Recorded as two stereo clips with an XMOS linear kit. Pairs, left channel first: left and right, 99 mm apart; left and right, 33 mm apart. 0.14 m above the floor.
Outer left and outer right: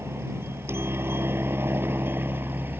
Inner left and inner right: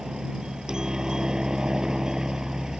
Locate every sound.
0.0 s a helicopter: 25° right (ahead or behind); by 2.8 s 20° right (ahead or behind)